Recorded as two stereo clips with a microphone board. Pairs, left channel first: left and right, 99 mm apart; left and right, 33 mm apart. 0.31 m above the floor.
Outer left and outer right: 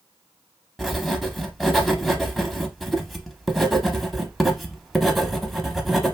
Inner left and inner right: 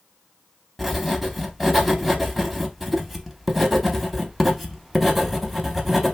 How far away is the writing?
About 0.6 m.